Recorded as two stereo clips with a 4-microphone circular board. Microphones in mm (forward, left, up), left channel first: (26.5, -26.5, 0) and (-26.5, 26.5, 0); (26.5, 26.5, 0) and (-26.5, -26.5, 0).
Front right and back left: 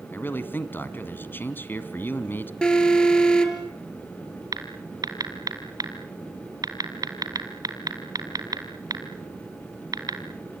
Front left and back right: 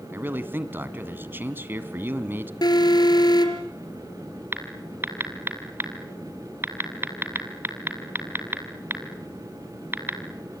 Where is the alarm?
30° left, 3.5 m.